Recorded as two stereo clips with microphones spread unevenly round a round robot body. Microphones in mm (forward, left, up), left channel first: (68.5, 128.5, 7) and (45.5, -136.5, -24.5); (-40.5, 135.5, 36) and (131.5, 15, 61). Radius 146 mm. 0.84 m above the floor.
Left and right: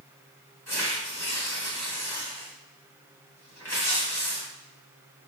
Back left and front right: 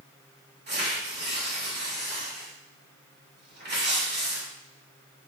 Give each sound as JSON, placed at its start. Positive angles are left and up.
{"t": 0.7, "sound": "tearing paper", "azimuth_deg": 5, "distance_m": 2.0}